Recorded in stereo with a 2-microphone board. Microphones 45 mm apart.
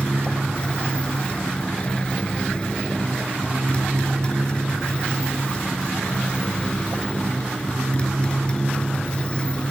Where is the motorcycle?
25° left (ahead or behind).